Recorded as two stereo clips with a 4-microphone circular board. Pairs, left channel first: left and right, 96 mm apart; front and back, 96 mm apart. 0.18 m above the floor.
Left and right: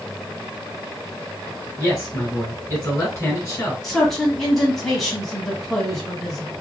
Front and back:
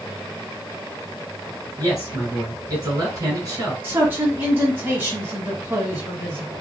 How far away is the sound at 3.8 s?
About 1.1 m.